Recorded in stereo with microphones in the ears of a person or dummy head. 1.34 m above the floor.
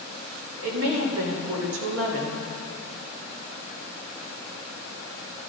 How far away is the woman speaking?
About 3 m.